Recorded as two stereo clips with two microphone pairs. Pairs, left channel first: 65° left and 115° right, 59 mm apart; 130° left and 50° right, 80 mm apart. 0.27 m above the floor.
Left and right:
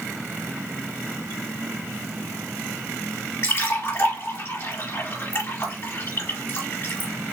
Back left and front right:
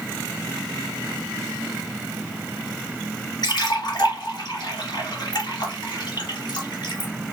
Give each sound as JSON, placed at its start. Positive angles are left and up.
{"t": 3.4, "sound": "a splash", "azimuth_deg": 110, "distance_m": 2.0}